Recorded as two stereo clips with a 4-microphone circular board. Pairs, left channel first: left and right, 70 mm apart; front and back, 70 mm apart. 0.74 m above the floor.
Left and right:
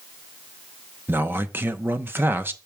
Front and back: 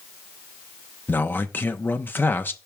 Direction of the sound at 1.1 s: 45° right.